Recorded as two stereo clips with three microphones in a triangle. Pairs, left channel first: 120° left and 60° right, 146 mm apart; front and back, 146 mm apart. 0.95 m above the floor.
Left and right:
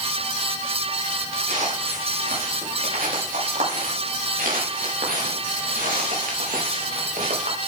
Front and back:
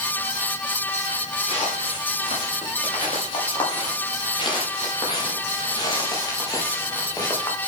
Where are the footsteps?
45° right, 8 m; by 7.6 s 65° right, 5 m.